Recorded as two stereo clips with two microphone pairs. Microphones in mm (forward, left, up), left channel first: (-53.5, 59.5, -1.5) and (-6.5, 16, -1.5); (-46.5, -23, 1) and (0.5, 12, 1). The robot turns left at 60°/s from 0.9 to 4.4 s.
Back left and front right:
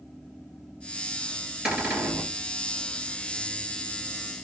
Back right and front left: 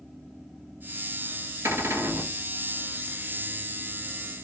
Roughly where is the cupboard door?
Ahead left.